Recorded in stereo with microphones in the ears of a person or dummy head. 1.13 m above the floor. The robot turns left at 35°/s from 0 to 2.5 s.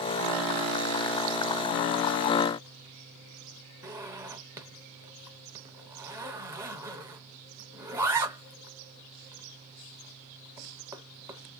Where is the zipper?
20° right (ahead or behind), 0.5 m.